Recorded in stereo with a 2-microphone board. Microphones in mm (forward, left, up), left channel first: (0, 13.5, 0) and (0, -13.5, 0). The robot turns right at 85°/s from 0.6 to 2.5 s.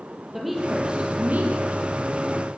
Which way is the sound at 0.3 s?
170° right.